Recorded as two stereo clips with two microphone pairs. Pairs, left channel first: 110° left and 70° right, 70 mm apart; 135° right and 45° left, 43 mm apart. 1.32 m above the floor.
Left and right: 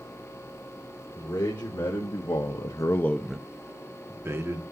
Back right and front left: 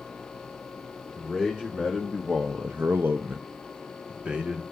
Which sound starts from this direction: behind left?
A man speaking, at 1.1 s.